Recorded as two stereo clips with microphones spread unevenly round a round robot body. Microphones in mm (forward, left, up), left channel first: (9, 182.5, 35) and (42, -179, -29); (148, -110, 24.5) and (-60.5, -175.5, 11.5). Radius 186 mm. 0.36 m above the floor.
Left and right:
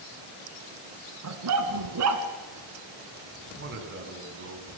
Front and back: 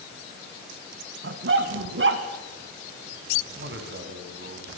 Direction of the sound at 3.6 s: 140° right.